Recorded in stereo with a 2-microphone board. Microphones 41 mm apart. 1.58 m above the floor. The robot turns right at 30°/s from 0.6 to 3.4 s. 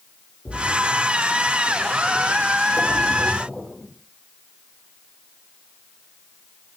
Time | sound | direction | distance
0.5 | a splash | 80° left | 3.5 m